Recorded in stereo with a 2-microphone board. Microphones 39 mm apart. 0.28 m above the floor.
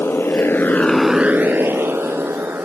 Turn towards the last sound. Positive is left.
turn(degrees=-75)  # may be behind; listen again after turning